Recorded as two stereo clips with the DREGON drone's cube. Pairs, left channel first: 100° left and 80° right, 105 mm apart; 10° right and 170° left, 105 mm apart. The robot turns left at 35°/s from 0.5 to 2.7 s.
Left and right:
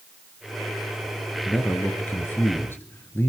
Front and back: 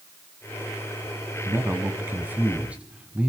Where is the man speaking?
160° left, 1.3 m; by 3.3 s 115° left, 1.3 m.